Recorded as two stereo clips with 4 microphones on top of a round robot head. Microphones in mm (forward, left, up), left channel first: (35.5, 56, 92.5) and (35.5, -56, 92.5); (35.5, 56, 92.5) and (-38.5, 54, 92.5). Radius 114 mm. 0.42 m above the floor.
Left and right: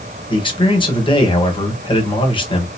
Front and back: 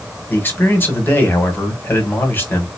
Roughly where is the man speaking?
Ahead left.